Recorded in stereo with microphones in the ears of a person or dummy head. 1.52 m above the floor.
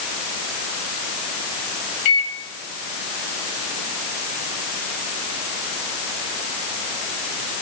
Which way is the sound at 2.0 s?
50° left (ahead or behind).